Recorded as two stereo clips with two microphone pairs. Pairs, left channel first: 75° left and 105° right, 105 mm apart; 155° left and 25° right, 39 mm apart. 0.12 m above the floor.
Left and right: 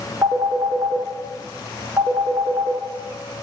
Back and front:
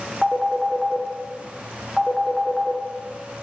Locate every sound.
0.2 s a phone ringing: 95° right, 0.6 m